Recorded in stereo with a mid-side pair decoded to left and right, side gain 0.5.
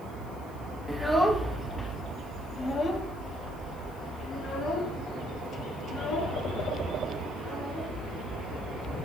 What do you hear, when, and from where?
0.9 s a child speaking: straight ahead, 1.3 m; by 7.9 s 70° left, 4 m